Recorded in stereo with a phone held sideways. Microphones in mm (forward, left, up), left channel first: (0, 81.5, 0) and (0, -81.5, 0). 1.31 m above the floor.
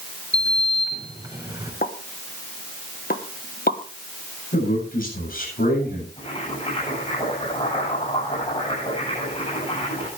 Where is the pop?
65° left (ahead or behind), 1.3 m.